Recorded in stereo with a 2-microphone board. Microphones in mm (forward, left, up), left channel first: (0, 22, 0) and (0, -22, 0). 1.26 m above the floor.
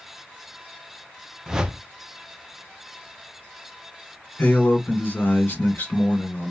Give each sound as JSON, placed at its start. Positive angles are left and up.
{"t": 1.5, "sound": "a whoosh", "side_deg": -15, "distance_m": 0.5}
{"t": 4.4, "sound": "a man speaking", "side_deg": 50, "distance_m": 1.6}